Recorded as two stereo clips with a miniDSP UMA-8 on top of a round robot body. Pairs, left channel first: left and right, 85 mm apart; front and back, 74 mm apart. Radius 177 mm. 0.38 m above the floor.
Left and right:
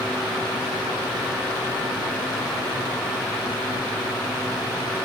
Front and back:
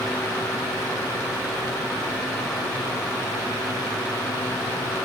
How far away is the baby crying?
I don't hear a baby crying.